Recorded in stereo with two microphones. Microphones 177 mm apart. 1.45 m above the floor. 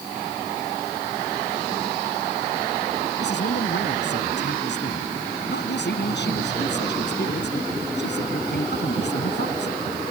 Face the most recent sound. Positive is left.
turn(degrees=75)  # may be behind; listen again after turning